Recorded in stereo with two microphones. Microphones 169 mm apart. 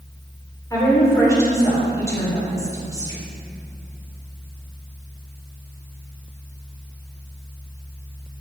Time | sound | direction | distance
0.7 | a woman speaking | 20° left (ahead or behind) | 4 m